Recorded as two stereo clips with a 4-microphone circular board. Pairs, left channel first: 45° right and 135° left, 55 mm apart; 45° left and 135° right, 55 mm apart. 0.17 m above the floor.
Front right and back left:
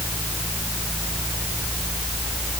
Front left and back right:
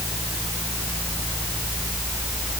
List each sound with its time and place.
Only background noise.